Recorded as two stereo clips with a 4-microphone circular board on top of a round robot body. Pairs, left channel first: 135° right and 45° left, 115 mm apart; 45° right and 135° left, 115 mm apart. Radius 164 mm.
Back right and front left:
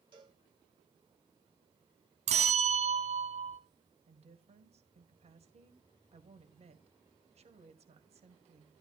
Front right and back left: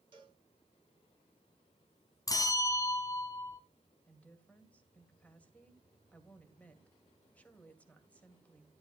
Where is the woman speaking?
30° left, 2 m.